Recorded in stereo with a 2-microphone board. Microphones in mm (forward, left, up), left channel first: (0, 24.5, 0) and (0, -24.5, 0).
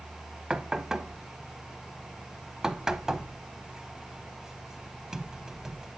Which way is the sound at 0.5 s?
10° right (ahead or behind).